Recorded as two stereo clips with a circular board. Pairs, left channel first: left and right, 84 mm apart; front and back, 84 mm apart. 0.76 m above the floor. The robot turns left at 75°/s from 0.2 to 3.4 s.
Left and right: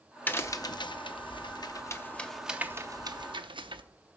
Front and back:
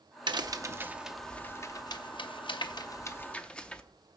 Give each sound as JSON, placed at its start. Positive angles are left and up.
{"t": 0.3, "sound": "a crack", "azimuth_deg": 160, "distance_m": 0.6}